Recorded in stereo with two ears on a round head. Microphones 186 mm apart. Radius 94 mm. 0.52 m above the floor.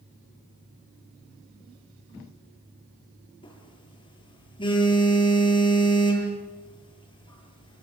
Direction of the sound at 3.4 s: 25° left (ahead or behind).